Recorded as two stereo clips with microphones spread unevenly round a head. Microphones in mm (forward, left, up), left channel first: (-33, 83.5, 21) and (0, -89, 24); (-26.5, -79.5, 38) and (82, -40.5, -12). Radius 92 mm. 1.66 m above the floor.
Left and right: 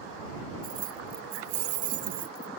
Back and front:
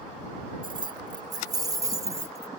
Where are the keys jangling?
30° right; by 2.5 s 50° right.